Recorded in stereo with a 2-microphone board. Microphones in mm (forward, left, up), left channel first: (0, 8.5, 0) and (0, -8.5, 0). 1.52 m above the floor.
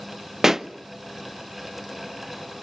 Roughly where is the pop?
Right.